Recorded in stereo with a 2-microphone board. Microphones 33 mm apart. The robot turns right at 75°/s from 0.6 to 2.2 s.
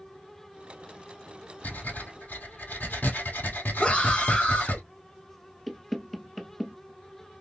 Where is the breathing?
60° left, 2 m; by 4.8 s 105° left, 2 m.